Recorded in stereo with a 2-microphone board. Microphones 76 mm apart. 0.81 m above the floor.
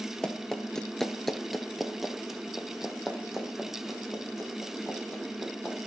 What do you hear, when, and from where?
0.2 s running footsteps: 10° left (ahead or behind), 1.0 m; by 5.8 s 5° right (ahead or behind), 4 m